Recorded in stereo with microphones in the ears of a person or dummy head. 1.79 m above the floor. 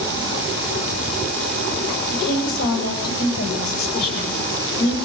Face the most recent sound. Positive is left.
turn(degrees=60)  # may be behind; listen again after turning